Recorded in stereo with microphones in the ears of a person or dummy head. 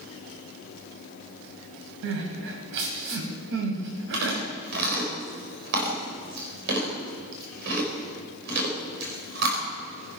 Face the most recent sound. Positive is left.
turn(degrees=-60)  # may be behind; listen again after turning